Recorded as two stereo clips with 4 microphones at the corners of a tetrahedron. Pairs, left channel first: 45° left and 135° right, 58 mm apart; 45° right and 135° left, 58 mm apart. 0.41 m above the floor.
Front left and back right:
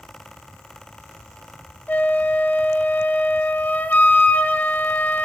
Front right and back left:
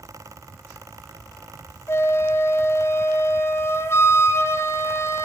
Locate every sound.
1.9 s a flute: 10° right, 2 m